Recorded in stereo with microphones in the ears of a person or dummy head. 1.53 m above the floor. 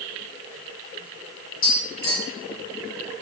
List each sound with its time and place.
1.6 s tapping: 40° left (ahead or behind), 1.6 m